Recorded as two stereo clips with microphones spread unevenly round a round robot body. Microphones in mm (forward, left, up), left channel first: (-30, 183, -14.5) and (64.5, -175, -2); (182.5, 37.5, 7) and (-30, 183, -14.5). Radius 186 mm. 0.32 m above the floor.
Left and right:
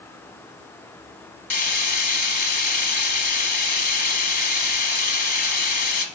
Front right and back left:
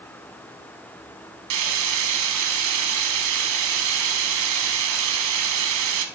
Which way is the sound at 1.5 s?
170° left.